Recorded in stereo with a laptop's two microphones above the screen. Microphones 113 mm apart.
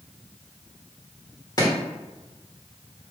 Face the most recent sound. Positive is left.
turn(degrees=30)  # may be behind; listen again after turning